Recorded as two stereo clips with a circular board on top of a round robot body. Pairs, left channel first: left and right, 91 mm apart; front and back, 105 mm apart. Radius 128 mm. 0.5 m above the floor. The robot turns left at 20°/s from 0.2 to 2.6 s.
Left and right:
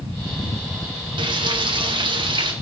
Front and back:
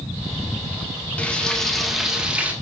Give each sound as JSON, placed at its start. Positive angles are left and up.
{"t": 1.2, "sound": "frying", "azimuth_deg": -75, "distance_m": 2.0}